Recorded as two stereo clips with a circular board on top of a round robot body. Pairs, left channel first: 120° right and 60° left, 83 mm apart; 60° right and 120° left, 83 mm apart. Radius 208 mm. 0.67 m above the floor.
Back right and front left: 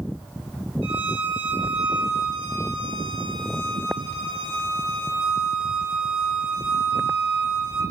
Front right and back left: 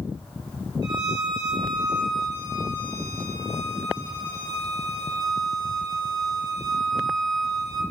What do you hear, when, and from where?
0.8 s a violin: 80° left, 2 m